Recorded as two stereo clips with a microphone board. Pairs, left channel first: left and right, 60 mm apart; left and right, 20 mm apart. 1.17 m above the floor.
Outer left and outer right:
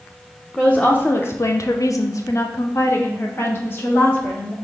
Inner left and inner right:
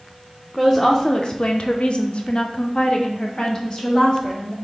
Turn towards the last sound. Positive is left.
turn(degrees=30)  # may be behind; listen again after turning